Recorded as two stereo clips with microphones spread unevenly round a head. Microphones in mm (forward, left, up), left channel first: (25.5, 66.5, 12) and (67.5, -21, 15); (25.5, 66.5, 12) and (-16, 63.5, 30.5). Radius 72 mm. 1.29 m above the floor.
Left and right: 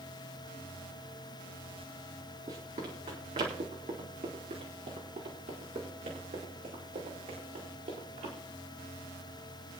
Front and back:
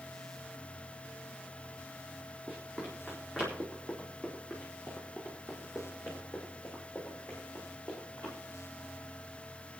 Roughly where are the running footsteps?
Right.